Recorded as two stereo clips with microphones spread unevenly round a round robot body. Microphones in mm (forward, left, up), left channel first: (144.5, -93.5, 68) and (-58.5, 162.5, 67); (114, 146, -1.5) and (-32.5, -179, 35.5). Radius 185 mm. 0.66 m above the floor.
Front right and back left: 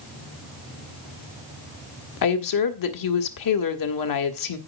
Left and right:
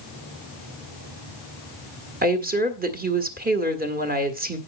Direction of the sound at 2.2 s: 45° right.